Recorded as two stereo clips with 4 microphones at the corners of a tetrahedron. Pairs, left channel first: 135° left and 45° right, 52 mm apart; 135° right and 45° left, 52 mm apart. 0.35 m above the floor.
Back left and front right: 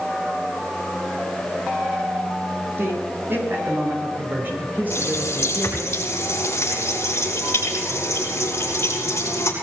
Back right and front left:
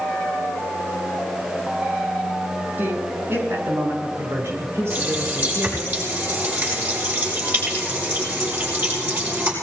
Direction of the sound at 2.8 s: 5° right.